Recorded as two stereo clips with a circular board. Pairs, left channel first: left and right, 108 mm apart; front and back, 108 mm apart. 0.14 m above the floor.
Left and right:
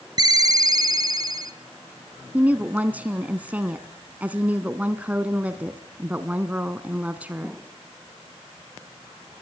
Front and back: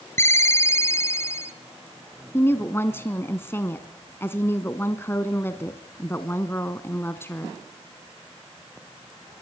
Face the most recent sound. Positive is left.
turn(degrees=-35)